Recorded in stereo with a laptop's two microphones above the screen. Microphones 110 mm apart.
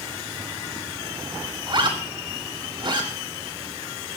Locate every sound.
1.7 s a zipper: 50° right (ahead or behind), 4.5 m